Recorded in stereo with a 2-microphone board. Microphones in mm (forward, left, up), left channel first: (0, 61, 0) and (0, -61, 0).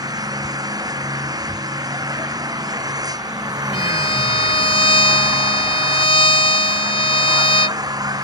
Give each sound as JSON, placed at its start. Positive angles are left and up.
{"t": 0.0, "sound": "an engine running", "side_deg": -30}
{"t": 3.7, "sound": "a violin", "side_deg": 45}